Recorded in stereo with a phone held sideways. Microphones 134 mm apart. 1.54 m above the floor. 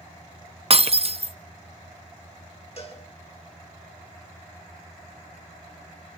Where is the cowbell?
50° left (ahead or behind), 5 m.